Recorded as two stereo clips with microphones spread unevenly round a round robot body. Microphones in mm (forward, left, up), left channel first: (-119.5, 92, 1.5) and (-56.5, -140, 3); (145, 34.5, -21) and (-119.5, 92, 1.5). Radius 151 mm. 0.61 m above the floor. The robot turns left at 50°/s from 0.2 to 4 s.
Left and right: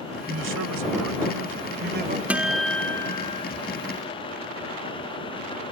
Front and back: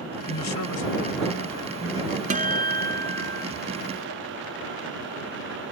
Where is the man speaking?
35° right; by 2.2 s 130° right.